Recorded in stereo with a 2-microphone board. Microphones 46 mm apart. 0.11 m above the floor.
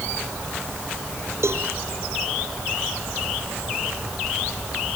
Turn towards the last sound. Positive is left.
turn(degrees=-60)  # may be behind; listen again after turning